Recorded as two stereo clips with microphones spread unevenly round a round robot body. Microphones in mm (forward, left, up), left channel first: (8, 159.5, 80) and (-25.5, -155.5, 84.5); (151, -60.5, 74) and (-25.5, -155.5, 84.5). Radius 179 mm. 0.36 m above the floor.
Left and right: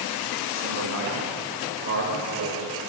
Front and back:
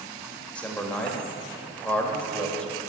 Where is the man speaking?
55° right, 1.7 m.